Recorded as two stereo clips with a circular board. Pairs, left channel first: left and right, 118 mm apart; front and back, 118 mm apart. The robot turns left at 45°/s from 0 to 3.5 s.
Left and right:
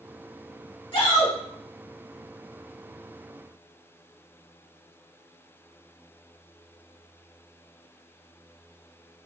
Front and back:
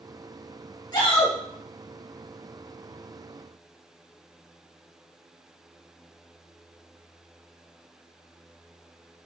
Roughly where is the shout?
Ahead left.